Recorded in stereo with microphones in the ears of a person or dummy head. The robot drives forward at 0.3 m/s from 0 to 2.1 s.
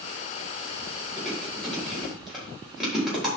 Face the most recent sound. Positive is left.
turn(degrees=-5)  # may be behind; listen again after turning